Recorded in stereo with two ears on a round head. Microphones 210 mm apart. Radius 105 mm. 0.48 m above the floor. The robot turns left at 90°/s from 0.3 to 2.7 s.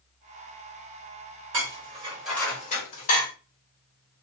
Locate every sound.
1.5 s dishes clattering: 60° right (ahead or behind), 1.5 m; by 3.3 s 35° left (ahead or behind), 1.5 m